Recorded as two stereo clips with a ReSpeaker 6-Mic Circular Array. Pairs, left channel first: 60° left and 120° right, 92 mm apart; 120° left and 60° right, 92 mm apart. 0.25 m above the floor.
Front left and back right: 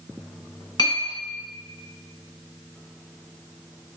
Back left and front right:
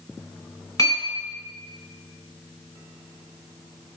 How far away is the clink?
About 1.4 m.